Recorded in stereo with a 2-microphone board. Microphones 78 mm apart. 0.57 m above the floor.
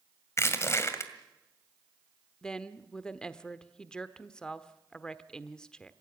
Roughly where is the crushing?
Left.